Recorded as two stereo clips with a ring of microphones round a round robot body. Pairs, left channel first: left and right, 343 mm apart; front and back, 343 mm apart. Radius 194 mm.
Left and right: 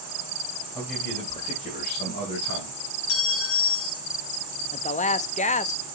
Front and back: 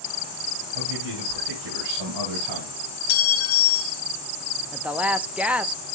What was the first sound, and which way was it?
A man speaking, 175° right.